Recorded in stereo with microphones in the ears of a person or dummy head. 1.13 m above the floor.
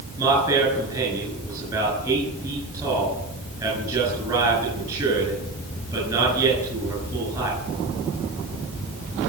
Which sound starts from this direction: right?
A man speaking, at 0.2 s.